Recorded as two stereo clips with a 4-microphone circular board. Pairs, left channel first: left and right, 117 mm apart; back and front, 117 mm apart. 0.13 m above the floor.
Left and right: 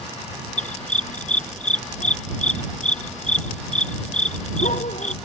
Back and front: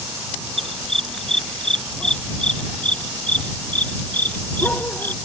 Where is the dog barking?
90° left; by 5.2 s 105° left.